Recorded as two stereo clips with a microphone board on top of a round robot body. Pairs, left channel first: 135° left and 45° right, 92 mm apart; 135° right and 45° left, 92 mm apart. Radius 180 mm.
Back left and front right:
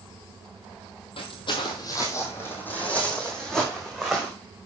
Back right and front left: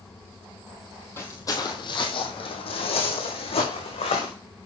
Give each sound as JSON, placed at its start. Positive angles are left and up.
{"t": 1.2, "sound": "footsteps", "azimuth_deg": 160, "distance_m": 1.7}